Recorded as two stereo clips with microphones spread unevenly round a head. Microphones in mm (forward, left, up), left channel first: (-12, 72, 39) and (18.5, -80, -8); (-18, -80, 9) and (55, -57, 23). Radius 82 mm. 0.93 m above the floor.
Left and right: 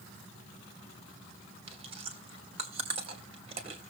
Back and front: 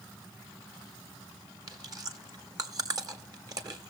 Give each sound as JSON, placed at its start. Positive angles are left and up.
{"t": 1.7, "sound": "chewing", "azimuth_deg": -20, "distance_m": 2.5}